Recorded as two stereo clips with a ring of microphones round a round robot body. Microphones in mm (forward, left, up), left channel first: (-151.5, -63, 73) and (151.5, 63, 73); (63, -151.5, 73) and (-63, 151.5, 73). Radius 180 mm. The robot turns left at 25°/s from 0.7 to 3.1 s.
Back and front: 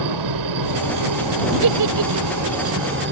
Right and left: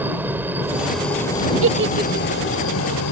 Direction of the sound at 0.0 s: 30° left.